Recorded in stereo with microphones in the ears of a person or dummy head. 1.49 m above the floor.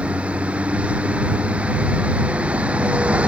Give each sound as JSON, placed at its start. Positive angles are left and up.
{"t": 0.0, "sound": "a vehicle", "side_deg": -10}